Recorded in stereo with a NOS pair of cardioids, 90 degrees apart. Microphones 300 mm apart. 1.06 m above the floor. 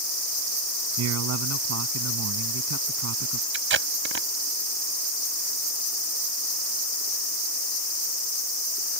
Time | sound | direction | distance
1.0 | a man speaking | 60° right | ?
3.5 | tape being pulled | 45° right | ?